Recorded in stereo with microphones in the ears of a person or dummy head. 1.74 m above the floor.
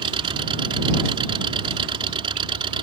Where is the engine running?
30° right (ahead or behind).